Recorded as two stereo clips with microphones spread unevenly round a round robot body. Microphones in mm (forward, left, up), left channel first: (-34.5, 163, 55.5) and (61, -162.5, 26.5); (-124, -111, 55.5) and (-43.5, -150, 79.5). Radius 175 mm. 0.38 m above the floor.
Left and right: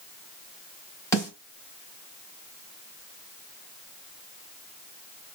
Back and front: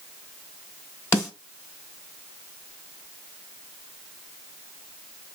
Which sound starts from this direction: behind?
A snare drum, at 1.1 s.